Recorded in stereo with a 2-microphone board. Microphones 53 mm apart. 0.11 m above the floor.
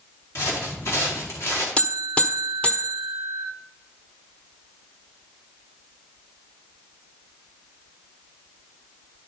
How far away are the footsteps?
About 4 m.